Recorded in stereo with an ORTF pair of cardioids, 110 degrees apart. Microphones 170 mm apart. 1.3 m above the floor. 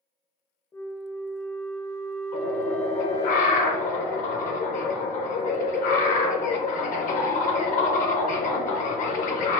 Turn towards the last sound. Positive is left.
turn(degrees=50)